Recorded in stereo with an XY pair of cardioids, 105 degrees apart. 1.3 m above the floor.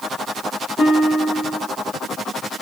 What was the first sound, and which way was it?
A guitar, 40° left.